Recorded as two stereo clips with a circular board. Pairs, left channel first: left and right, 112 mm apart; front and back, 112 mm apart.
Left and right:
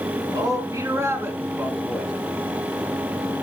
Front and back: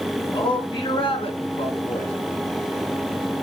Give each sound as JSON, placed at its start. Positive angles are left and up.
{"t": 0.3, "sound": "a man speaking", "azimuth_deg": -40, "distance_m": 3.0}